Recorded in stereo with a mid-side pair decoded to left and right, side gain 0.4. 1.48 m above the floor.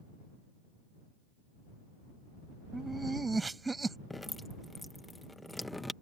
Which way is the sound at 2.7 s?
20° right.